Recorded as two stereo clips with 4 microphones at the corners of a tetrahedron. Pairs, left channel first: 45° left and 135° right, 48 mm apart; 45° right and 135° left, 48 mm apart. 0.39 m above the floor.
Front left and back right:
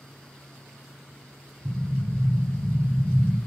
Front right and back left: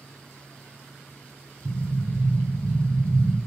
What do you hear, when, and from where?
1.6 s an explosion: 140° right, 0.8 m